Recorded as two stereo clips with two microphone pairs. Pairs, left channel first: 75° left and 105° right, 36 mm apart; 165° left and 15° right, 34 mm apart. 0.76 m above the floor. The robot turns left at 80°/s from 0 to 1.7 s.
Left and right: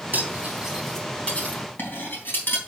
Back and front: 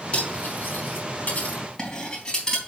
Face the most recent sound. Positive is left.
turn(degrees=100)